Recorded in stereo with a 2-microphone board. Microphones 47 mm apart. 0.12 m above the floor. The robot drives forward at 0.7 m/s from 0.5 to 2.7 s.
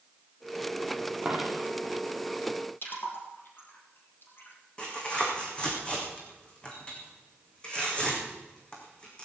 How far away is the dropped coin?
About 2.5 m.